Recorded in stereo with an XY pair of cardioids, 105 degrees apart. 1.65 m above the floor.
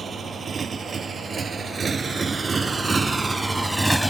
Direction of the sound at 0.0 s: 40° right.